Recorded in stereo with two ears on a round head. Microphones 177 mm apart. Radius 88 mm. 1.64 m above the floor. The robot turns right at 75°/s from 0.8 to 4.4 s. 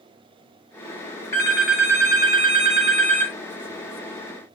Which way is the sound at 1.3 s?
150° left.